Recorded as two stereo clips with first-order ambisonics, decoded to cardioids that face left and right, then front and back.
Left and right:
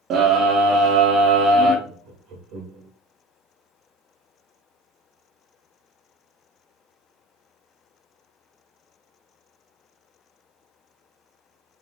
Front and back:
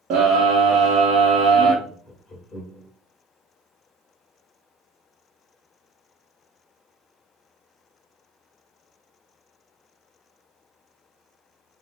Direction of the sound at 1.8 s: 85° right.